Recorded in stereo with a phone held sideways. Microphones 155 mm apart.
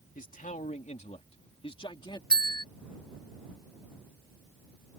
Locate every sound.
0.1 s a man speaking: 60° left (ahead or behind); by 2.2 s 30° left (ahead or behind)
2.3 s a bell: 70° right (ahead or behind)